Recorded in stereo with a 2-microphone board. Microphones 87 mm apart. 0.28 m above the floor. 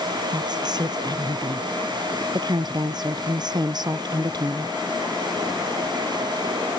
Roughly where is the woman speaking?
Right.